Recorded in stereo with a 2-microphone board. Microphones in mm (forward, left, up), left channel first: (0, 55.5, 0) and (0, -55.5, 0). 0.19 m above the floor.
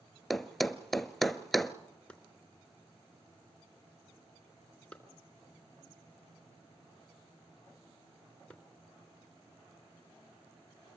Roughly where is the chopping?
Centre.